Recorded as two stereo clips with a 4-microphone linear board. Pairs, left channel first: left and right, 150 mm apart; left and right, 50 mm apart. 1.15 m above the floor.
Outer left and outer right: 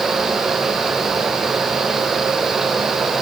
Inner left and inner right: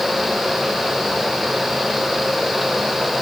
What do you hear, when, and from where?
Only background noise.